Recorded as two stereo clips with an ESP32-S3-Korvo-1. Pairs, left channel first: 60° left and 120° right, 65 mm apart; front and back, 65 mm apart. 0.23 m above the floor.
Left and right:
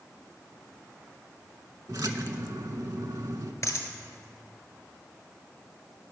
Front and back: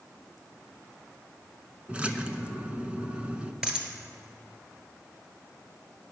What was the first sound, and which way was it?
A splash, 110° right.